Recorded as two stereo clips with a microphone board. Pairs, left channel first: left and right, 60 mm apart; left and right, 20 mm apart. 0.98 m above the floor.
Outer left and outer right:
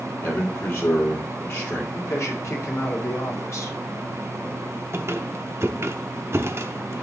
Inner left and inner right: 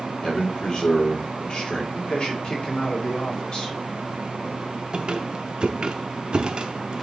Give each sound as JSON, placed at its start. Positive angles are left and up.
{"t": 0.2, "sound": "a man speaking", "side_deg": 45, "distance_m": 3.5}
{"t": 1.9, "sound": "a man speaking", "side_deg": 55, "distance_m": 2.0}
{"t": 4.9, "sound": "a squeak", "side_deg": -50, "distance_m": 0.7}